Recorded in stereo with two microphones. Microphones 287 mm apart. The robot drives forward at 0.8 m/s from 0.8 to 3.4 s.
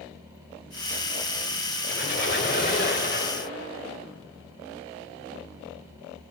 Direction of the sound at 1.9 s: 45° left (ahead or behind).